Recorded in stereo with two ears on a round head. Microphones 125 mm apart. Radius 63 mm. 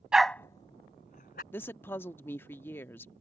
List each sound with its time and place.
0.1 s a dog barking: 5° right (ahead or behind); by 1.4 s 65° left (ahead or behind)
1.5 s a woman speaking: 15° left (ahead or behind)